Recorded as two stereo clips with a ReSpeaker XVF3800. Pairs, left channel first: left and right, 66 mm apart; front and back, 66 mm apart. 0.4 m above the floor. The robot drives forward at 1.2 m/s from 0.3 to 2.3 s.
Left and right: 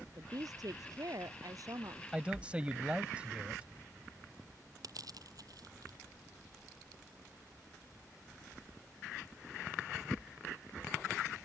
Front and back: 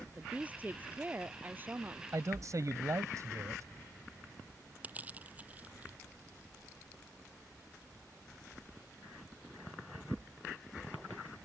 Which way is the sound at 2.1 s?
155° right.